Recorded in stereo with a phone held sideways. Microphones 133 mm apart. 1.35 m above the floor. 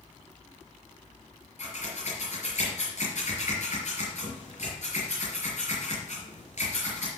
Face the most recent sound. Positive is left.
turn(degrees=60)  # may be behind; listen again after turning